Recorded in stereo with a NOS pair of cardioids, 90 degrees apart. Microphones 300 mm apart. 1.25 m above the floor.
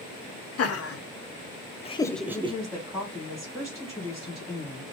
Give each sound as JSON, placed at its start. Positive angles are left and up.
{"t": 0.6, "sound": "laughter", "azimuth_deg": 60, "distance_m": 1.1}
{"t": 2.3, "sound": "a woman speaking", "azimuth_deg": 0, "distance_m": 1.8}